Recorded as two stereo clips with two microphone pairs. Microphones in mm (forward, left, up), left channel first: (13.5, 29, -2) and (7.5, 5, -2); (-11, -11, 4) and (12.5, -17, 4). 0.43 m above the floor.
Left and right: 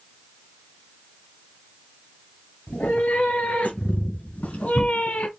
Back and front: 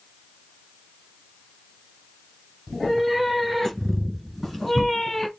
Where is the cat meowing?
80° left, 3 m; by 5.3 s 90° left, 1.5 m.